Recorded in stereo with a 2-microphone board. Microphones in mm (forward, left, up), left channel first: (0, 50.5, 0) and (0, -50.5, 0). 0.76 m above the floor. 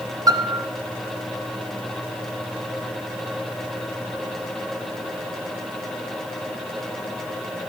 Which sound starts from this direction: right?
A piano, at 0.3 s.